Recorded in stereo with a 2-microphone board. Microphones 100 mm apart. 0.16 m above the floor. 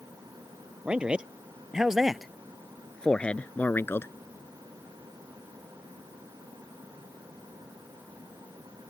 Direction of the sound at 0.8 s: 10° right (ahead or behind).